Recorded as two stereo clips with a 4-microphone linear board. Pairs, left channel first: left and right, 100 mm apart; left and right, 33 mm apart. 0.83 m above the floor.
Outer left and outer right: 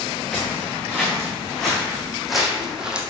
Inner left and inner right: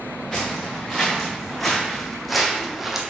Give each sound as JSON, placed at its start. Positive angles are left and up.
{"t": 0.3, "sound": "footsteps", "side_deg": 10, "distance_m": 3.5}